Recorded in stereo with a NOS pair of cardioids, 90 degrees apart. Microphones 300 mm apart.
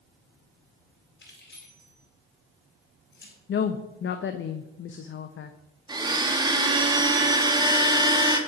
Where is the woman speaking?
40° left, 0.6 m.